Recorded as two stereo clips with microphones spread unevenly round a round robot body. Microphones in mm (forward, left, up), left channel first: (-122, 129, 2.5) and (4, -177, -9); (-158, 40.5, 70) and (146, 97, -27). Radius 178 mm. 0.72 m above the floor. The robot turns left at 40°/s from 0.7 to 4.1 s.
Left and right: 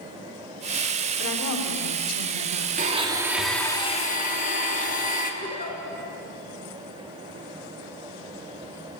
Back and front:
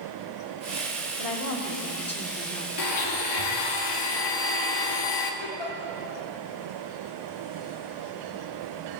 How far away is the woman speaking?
About 2 m.